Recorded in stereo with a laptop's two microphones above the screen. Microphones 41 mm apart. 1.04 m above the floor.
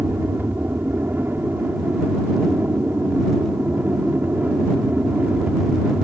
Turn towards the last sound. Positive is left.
turn(degrees=-45)  # may be behind; listen again after turning